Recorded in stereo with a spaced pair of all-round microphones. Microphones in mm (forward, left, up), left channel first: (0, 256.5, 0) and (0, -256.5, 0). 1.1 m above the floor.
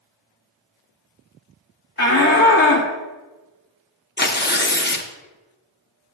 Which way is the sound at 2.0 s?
25° left (ahead or behind).